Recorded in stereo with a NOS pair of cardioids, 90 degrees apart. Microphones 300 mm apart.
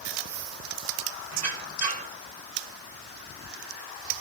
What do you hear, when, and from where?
1.3 s a squeak: 60° right, 1.7 m